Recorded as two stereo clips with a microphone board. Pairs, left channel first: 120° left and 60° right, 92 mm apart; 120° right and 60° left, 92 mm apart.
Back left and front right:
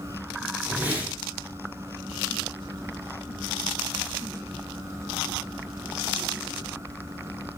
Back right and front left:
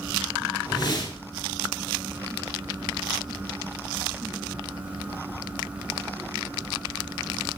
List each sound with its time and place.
0.7 s a whoosh: 125° right, 0.9 m